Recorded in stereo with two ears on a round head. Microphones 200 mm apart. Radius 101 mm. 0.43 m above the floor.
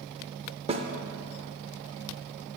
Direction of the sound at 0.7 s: 25° right (ahead or behind).